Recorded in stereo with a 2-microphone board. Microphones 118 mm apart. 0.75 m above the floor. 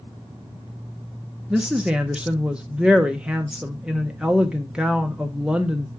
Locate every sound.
1.5 s a woman speaking: 10° right (ahead or behind), 0.7 m